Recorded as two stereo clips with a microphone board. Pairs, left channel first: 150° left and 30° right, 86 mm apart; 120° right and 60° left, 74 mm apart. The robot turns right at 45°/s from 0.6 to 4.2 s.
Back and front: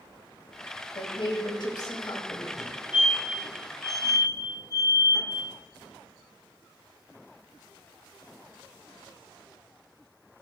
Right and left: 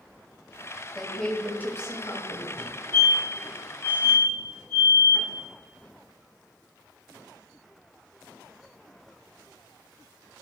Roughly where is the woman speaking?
Behind left.